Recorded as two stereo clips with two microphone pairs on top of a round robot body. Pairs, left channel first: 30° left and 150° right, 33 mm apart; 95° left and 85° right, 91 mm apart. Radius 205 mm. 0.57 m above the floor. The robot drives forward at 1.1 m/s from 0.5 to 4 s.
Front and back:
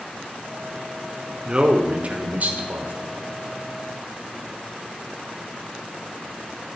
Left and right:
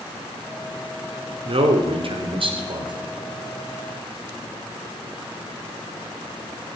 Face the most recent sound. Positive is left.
turn(degrees=-140)